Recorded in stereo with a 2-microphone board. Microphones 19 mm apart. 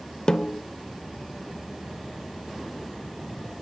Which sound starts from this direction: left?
A snare drum, at 0.3 s.